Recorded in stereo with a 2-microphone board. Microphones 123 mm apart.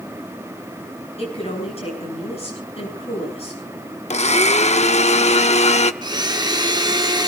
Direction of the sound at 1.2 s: 55° left (ahead or behind).